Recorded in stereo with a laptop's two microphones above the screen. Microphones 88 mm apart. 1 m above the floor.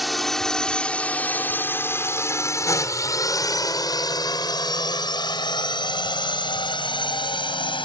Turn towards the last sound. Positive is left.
turn(degrees=65)  # may be behind; listen again after turning